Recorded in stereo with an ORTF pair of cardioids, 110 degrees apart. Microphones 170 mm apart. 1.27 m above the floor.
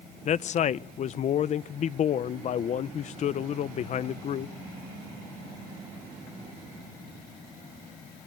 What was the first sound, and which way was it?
A man speaking, 45° left.